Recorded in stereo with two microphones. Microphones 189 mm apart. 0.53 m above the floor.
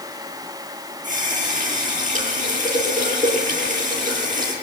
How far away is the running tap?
About 8 m.